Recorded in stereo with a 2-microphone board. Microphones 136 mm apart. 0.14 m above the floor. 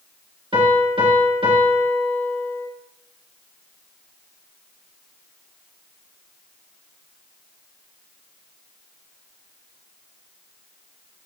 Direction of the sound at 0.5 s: 40° right (ahead or behind).